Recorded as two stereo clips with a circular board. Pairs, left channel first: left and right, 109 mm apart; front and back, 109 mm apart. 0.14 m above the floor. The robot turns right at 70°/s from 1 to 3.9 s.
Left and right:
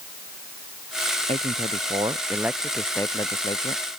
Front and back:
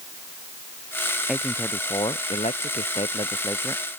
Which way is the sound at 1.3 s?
95° right.